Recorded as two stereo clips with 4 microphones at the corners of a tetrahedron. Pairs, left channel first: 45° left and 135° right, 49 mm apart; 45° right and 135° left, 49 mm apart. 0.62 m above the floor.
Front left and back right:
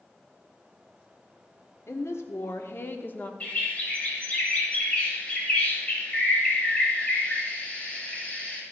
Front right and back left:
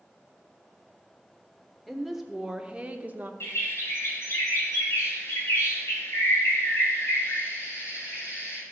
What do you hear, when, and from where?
1.9 s a woman speaking: 45° left, 1.5 m; by 3.3 s 95° left, 1.1 m
3.4 s a bird: 20° right, 3 m